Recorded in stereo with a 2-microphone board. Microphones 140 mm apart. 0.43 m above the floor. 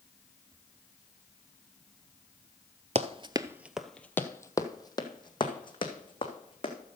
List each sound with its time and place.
3.0 s running footsteps: 50° right (ahead or behind), 0.6 m; by 6.7 s 40° left (ahead or behind), 2.5 m